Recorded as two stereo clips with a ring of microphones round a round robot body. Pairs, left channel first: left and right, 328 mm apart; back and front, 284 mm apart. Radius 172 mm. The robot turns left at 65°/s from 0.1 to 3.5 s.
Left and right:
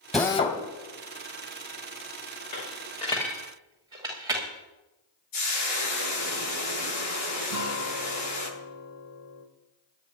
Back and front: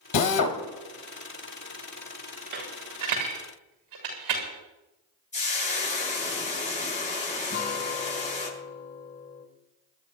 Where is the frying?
115° left, 9.5 m.